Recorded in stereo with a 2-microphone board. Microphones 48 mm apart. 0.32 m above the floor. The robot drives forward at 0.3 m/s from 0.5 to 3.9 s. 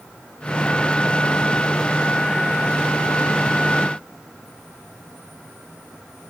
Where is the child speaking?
No child speaking in this recording.